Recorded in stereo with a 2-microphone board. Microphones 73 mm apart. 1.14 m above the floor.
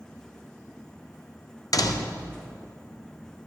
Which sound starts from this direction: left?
A door slam, at 1.7 s.